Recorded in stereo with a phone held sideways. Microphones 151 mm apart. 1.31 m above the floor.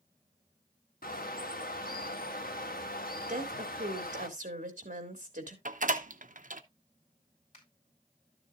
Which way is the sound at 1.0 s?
75° left (ahead or behind).